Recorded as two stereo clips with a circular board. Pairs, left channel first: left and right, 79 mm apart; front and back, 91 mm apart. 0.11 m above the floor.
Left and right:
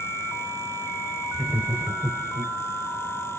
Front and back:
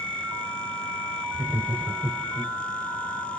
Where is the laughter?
150° right, 1.3 m; by 2.5 s 125° right, 1.9 m.